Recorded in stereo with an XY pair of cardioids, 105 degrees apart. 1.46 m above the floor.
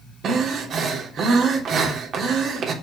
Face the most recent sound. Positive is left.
turn(degrees=-60)